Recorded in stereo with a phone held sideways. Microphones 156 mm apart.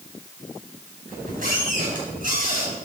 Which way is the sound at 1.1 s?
60° right (ahead or behind).